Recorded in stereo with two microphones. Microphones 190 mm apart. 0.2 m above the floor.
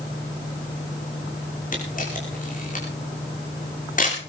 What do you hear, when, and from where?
1.7 s a camera shutter: 45° left (ahead or behind), 6.5 m